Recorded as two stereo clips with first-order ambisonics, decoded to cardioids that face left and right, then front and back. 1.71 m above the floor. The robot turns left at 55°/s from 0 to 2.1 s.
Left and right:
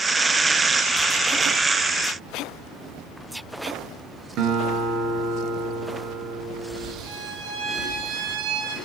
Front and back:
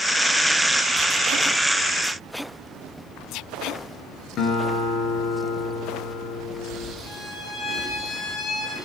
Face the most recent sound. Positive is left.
turn(degrees=-70)